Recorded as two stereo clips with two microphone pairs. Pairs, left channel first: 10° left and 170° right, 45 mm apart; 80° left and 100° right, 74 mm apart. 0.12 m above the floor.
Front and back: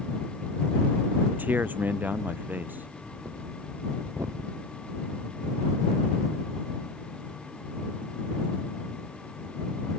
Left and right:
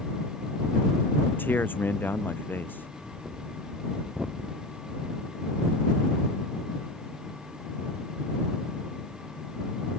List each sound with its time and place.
1.3 s a man speaking: 140° left
3.0 s breathing: straight behind